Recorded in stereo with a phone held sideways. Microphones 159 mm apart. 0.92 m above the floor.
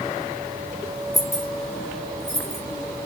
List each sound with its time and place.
1.1 s keys jangling: centre (ahead or behind), 1.5 m; by 2.6 s 45° left (ahead or behind), 0.9 m